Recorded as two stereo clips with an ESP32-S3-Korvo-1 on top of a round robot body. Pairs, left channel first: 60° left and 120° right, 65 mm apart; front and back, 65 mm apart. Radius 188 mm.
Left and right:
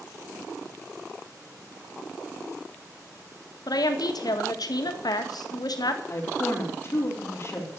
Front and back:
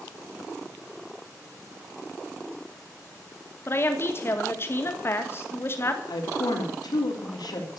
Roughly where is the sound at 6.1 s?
Ahead.